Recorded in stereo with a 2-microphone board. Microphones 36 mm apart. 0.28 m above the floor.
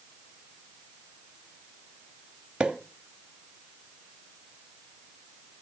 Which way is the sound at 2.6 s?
30° right (ahead or behind).